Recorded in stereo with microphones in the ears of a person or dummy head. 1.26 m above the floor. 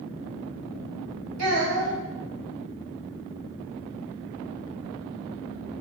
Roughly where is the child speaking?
Right.